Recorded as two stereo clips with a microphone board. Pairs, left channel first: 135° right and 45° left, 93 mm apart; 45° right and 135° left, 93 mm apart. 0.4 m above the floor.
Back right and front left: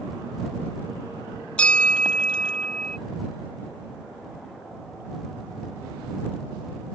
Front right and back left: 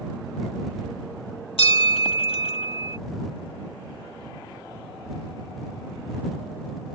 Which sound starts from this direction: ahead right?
A bell, at 1.6 s.